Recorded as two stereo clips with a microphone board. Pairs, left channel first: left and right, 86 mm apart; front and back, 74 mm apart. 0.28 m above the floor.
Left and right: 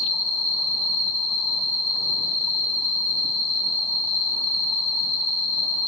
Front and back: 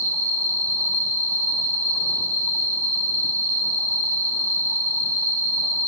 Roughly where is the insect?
Ahead right.